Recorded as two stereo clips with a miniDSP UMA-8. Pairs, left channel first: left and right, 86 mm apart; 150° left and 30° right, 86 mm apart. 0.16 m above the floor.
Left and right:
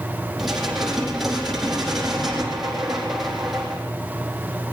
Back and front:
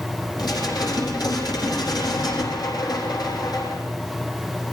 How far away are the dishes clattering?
About 4.5 m.